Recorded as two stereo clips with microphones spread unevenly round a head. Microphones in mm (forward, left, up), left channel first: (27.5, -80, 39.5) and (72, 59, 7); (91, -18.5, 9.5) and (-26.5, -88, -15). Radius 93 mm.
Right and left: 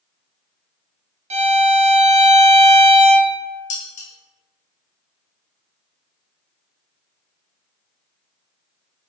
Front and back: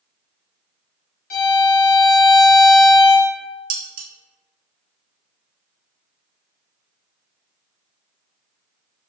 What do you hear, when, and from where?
1.3 s a violin: 60° left, 0.7 m
3.7 s dishes clattering: 145° right, 0.5 m